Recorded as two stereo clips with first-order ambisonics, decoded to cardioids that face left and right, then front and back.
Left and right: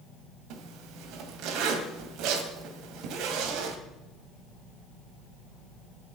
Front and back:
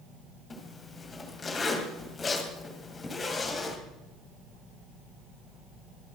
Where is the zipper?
70° right, 2.5 m.